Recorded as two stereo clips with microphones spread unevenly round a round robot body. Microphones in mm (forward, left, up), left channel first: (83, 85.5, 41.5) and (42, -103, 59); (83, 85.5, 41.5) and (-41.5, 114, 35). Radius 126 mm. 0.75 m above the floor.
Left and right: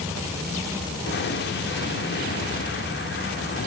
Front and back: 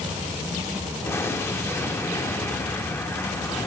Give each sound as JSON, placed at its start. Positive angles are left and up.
{"t": 1.1, "sound": "an explosion", "azimuth_deg": 60, "distance_m": 2.5}